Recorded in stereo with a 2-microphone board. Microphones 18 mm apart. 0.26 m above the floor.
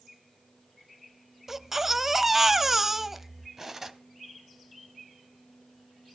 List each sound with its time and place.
1.5 s a baby crying: 20° right (ahead or behind), 0.7 m
3.6 s cutlery clinking: 20° right (ahead or behind), 1.0 m